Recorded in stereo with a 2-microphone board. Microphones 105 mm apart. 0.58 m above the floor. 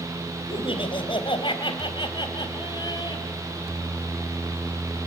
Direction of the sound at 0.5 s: 60° left (ahead or behind).